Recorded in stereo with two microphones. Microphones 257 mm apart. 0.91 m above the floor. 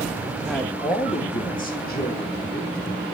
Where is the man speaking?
Centre (ahead or behind), 1.4 m; by 2.8 s 40° left (ahead or behind), 4 m.